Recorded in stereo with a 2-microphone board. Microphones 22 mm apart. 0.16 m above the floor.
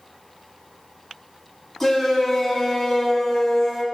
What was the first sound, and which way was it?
A shout, 5° left (ahead or behind).